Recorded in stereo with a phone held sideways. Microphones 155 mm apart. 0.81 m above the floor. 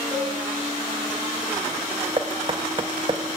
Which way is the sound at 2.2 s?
35° right (ahead or behind).